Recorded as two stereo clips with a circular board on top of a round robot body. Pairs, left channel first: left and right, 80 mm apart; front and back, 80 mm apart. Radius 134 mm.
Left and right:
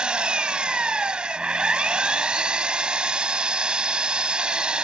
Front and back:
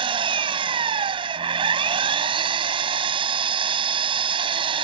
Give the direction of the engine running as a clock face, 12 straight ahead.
6 o'clock.